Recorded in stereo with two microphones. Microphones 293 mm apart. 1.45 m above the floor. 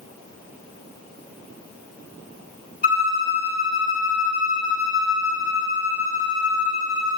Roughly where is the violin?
Left.